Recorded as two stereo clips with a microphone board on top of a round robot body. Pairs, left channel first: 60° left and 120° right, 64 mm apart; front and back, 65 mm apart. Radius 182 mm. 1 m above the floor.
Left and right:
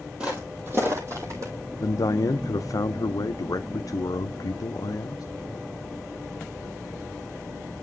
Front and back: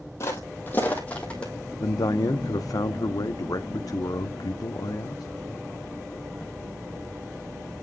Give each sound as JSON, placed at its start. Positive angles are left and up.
{"t": 0.2, "sound": "footsteps", "azimuth_deg": -45, "distance_m": 1.8}
{"t": 1.8, "sound": "a man speaking", "azimuth_deg": 30, "distance_m": 0.6}